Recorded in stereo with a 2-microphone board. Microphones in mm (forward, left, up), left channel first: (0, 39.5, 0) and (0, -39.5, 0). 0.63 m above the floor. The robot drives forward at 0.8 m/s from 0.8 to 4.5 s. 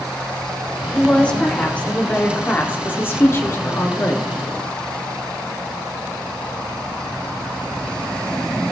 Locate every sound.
0.9 s a woman speaking: 15° left (ahead or behind), 3 m; by 4.3 s 35° left (ahead or behind), 1.3 m